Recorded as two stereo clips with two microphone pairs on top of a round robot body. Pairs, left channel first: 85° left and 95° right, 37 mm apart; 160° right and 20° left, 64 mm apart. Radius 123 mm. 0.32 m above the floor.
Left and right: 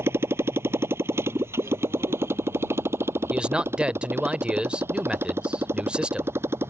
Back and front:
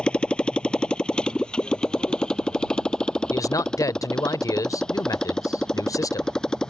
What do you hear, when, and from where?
0.0 s a motorcycle: 85° right; by 6.7 s 80° right
3.3 s a man speaking: 160° right